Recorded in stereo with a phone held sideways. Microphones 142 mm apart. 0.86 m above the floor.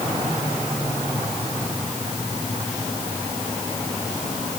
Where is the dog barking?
I don't hear a dog barking.